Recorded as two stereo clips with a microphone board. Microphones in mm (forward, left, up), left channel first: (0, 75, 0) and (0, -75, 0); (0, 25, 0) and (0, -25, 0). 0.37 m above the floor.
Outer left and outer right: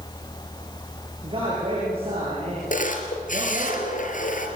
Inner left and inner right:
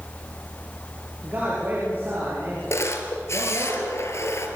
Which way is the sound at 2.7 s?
60° left (ahead or behind).